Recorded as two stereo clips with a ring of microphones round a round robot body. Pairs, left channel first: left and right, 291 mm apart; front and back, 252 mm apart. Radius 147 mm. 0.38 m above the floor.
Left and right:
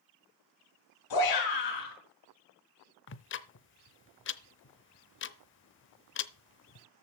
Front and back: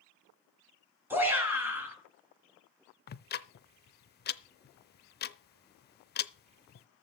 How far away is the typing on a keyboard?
I don't hear typing on a keyboard.